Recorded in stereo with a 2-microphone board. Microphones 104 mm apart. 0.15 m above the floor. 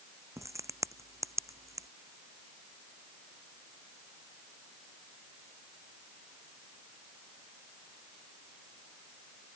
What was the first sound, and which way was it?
A crack, 30° right (ahead or behind).